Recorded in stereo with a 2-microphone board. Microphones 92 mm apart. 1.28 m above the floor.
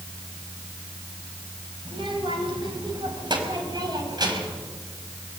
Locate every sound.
1.9 s a child speaking: 65° right (ahead or behind), 4.5 m; by 4.6 s 45° right (ahead or behind), 5.5 m